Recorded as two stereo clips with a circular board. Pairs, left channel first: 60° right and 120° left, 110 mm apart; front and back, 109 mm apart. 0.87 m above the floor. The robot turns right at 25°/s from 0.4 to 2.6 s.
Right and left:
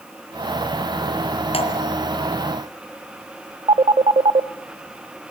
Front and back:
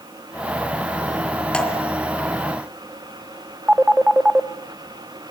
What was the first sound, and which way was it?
Dripping, 80° right.